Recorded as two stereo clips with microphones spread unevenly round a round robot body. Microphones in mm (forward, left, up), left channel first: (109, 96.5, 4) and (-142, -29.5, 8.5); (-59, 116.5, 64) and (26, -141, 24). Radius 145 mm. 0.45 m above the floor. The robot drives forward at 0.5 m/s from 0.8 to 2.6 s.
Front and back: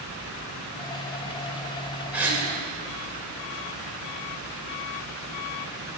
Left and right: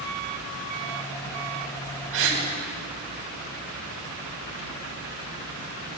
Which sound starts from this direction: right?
A gasp, at 2.1 s.